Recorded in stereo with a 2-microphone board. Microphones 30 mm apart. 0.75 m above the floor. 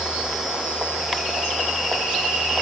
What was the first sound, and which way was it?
Only background noise.